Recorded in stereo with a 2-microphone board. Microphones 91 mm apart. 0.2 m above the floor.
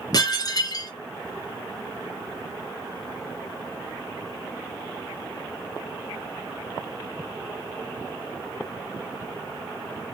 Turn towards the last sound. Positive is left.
turn(degrees=45)  # may be behind; listen again after turning